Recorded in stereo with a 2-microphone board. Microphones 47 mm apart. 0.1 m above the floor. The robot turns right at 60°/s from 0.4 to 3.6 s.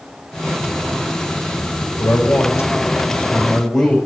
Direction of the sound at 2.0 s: 80° left.